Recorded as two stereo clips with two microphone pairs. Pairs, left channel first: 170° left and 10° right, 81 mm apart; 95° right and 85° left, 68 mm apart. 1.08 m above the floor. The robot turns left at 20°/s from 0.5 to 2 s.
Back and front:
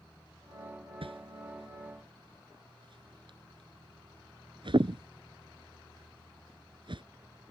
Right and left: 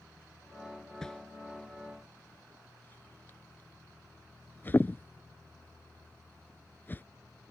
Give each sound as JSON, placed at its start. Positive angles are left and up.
{"t": 1.0, "sound": "a whoosh", "azimuth_deg": -15}